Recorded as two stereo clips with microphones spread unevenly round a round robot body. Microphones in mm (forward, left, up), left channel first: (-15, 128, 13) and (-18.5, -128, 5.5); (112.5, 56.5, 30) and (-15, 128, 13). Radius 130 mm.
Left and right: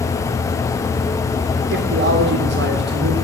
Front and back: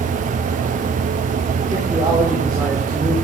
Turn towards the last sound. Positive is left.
turn(degrees=-135)